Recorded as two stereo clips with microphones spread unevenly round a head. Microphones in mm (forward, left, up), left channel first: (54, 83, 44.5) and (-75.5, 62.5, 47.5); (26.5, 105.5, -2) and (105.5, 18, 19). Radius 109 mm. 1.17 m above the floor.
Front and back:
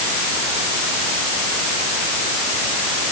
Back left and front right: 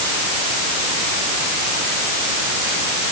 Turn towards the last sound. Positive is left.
No sound to turn to.